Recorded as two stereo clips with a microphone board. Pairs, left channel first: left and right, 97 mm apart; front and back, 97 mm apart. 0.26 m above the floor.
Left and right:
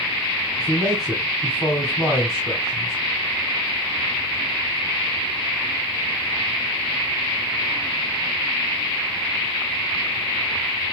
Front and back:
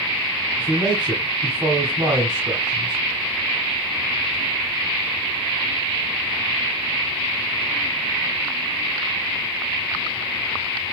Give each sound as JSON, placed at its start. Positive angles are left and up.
{"t": 0.6, "sound": "a man speaking", "azimuth_deg": -175, "distance_m": 1.8}